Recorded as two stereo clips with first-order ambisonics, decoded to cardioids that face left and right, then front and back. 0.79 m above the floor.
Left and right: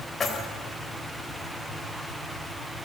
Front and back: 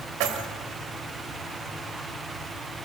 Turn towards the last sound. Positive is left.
turn(degrees=160)